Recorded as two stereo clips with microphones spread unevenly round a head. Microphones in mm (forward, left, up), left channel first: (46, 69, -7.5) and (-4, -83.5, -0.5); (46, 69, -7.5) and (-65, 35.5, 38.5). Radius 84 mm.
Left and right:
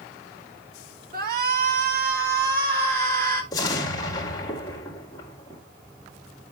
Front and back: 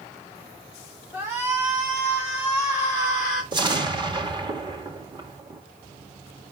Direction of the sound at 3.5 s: 140° left.